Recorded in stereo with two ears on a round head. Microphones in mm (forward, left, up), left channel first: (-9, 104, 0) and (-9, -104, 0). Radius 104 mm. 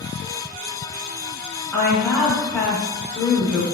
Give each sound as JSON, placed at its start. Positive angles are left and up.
{"t": 1.7, "sound": "a woman speaking", "side_deg": 5, "distance_m": 1.1}